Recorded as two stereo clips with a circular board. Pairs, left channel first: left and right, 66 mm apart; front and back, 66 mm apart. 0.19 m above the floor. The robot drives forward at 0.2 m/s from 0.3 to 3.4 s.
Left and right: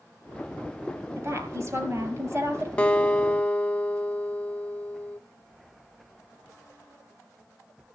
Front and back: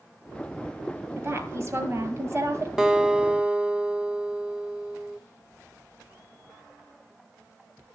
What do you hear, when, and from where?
1.2 s a woman speaking: 130° right, 4.5 m; by 2.7 s 135° right, 5 m
2.8 s a guitar: 120° left, 0.9 m; by 5.2 s 135° left, 0.9 m